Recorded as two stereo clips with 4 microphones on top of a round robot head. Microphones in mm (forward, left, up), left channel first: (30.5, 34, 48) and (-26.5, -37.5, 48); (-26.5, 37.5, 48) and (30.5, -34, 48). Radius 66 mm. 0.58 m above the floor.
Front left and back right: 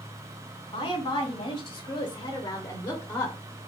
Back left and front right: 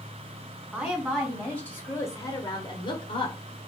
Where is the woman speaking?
25° left, 1.4 m; by 3.4 s 130° left, 1.3 m.